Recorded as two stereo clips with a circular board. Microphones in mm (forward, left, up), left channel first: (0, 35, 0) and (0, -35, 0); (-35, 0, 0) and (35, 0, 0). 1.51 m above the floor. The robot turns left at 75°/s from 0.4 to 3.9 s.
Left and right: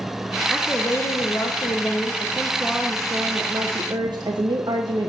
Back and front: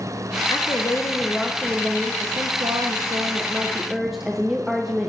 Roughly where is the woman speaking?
Behind.